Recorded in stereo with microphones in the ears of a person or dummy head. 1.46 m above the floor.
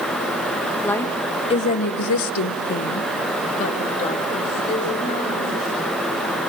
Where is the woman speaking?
10° left (ahead or behind), 1.5 m; by 5.9 s 30° left (ahead or behind), 4 m.